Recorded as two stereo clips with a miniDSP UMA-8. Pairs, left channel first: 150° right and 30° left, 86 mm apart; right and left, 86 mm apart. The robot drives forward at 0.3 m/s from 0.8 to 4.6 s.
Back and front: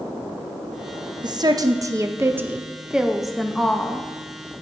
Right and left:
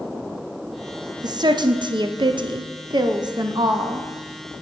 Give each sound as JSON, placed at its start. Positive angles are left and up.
{"t": 1.2, "sound": "a woman speaking", "azimuth_deg": 60, "distance_m": 0.7}